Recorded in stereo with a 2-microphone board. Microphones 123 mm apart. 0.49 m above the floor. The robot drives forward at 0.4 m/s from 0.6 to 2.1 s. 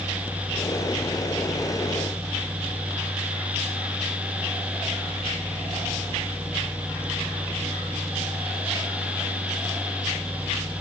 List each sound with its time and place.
Only background noise.